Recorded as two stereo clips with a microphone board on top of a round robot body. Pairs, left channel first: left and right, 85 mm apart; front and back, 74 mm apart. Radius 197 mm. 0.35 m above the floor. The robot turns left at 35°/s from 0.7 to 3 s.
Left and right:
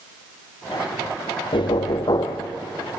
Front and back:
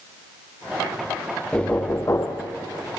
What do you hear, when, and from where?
1.5 s knocking: 80° left, 1.5 m; by 2.5 s 45° left, 1.5 m